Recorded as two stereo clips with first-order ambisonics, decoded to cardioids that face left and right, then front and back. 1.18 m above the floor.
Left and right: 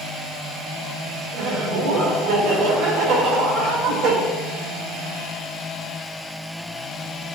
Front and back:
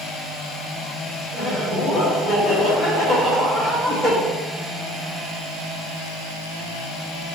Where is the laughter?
110° right, 4 m.